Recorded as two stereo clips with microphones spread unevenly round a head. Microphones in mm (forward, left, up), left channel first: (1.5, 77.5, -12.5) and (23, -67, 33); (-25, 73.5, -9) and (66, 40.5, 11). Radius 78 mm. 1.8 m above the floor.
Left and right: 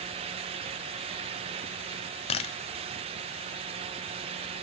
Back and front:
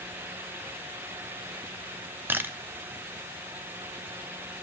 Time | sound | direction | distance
2.3 | a camera shutter | 40° left | 0.7 m